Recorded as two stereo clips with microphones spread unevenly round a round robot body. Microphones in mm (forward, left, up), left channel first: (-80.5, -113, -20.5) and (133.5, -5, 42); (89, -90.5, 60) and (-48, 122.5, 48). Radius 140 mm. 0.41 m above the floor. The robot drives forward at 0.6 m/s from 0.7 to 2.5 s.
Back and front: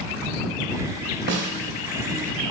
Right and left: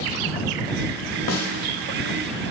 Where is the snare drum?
20° right, 1.0 m; by 1.5 s 25° right, 0.9 m.